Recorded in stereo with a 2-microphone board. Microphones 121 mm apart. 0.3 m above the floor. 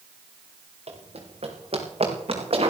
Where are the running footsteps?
60° right (ahead or behind), 5.5 m; by 2.7 s 55° right (ahead or behind), 6 m.